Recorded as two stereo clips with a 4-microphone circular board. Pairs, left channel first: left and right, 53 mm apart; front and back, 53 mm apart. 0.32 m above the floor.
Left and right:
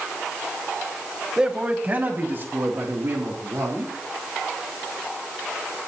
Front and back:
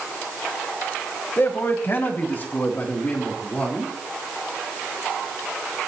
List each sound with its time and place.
1.4 s a man speaking: 20° right, 1.5 m; by 3.9 s 60° right, 4 m